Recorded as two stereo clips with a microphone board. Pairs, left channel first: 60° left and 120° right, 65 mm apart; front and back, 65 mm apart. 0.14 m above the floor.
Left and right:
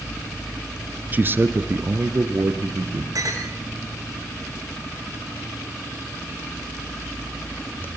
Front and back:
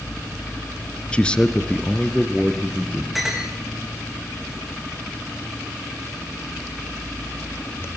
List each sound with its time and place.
1.1 s a man speaking: 70° right, 1.7 m; by 3.0 s 85° right, 4 m
3.1 s a clink: 90° right, 7.5 m